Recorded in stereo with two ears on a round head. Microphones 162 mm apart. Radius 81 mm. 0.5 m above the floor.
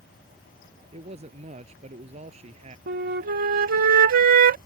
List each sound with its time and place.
0.9 s a man speaking: 35° right (ahead or behind)
2.9 s a flute: 50° right (ahead or behind)